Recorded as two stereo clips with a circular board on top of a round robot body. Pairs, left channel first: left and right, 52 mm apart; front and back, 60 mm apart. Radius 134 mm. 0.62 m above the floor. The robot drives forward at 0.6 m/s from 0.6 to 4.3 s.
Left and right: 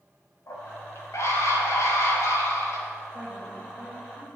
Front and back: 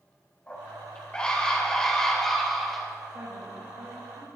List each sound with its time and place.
0.5 s a scream: 65° left, 4 m; by 2.9 s 90° left, 3.5 m
3.1 s a woman speaking: 175° right, 4.5 m